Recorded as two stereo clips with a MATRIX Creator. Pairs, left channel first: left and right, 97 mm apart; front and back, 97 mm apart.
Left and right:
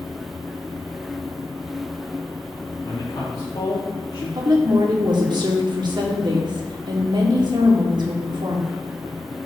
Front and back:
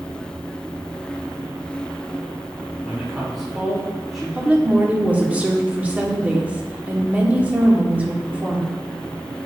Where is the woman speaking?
110° right, 1.2 m.